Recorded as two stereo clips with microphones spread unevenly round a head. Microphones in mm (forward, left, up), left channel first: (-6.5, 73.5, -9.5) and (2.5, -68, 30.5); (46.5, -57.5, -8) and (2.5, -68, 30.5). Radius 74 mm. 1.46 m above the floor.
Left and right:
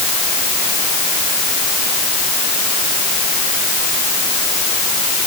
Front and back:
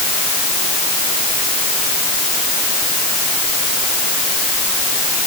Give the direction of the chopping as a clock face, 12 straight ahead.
I don't hear chopping.